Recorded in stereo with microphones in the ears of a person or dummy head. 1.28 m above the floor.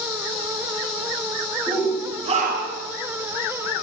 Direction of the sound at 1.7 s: 10° right (ahead or behind).